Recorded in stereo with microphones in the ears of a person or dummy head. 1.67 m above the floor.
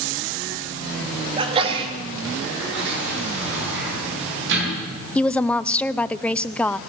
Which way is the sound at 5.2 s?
10° left (ahead or behind).